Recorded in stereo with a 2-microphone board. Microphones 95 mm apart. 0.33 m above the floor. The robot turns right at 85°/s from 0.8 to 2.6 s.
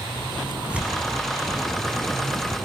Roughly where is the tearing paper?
Centre.